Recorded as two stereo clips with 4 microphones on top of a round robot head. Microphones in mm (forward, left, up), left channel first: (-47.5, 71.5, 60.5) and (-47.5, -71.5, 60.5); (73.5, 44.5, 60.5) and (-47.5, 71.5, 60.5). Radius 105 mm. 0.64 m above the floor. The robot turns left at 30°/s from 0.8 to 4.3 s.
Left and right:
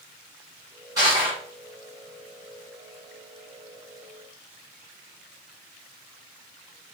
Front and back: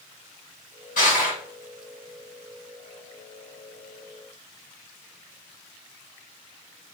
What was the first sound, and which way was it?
Crushing, 20° right.